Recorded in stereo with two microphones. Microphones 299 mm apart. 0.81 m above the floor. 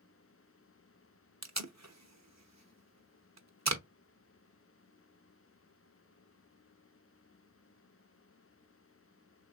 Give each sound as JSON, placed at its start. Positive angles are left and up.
{"t": 1.4, "sound": "tape being pulled", "side_deg": -55, "distance_m": 0.6}